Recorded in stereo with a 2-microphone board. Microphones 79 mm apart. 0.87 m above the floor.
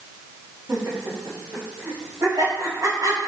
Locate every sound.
0.7 s laughter: 45° right (ahead or behind), 5.5 m; by 3.3 s 60° right (ahead or behind), 5 m